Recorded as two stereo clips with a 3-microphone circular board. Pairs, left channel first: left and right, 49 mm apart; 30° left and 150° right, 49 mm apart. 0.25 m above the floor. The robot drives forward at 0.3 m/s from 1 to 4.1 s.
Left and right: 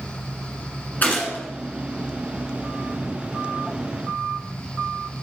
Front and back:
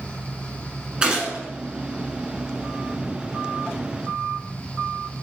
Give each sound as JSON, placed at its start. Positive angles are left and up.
{"t": 1.0, "sound": "a gunshot", "azimuth_deg": 140, "distance_m": 1.5}